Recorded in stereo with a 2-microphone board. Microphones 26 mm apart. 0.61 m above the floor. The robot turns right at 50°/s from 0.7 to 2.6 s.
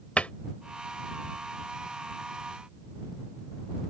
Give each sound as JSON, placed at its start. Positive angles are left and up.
{"t": 0.2, "sound": "a cupboard door", "side_deg": 55}